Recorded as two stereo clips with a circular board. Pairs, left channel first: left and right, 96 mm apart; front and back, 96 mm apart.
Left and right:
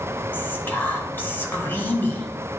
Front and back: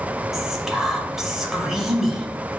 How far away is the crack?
No crack in this recording.